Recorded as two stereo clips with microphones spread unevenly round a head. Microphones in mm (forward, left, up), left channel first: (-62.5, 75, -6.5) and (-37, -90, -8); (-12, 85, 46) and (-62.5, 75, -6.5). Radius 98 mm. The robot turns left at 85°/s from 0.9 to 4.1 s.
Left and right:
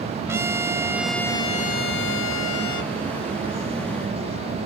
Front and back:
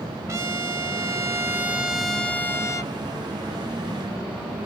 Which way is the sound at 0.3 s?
155° right.